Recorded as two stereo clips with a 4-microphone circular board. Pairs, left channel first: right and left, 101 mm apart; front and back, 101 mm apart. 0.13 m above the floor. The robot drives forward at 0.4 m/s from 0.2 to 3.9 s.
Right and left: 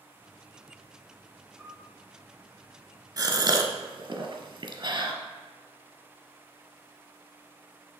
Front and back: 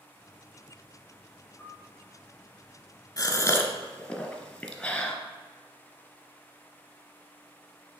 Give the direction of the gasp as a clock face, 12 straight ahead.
11 o'clock.